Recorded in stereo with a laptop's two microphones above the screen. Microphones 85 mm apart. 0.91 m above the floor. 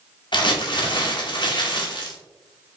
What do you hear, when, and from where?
0.3 s crumpling: 60° left (ahead or behind), 0.8 m